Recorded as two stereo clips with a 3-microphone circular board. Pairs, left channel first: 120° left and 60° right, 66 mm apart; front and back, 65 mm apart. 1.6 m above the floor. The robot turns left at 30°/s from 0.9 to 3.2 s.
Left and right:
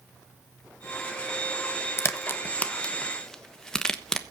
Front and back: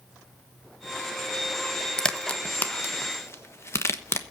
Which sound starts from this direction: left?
A crack, at 2.0 s.